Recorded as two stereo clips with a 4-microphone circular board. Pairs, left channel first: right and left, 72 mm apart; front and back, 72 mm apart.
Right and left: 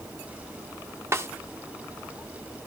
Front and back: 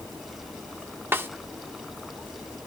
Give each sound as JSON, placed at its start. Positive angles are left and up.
{"t": 1.1, "sound": "a snare drum", "azimuth_deg": 130, "distance_m": 0.9}